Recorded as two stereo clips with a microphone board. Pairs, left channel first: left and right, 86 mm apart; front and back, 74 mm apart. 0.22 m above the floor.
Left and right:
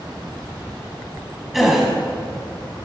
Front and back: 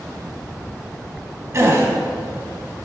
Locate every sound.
1.5 s a gasp: 175° right, 1.3 m